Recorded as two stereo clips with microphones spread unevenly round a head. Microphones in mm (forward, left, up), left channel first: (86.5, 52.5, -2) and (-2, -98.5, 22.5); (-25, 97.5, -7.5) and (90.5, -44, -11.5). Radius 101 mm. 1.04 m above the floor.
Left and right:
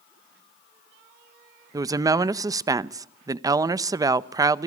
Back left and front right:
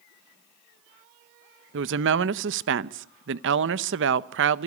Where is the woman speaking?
50° right, 0.8 m.